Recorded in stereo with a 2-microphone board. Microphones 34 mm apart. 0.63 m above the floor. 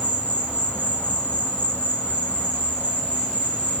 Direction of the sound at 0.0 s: 50° left (ahead or behind).